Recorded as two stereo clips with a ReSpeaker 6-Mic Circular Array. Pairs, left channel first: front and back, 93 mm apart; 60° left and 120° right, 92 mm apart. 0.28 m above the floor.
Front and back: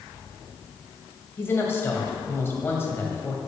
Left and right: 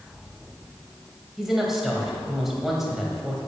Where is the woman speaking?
35° right, 1.7 m.